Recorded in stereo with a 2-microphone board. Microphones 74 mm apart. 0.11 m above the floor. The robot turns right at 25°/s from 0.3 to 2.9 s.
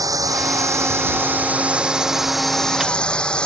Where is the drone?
55° right; by 3.5 s 10° left.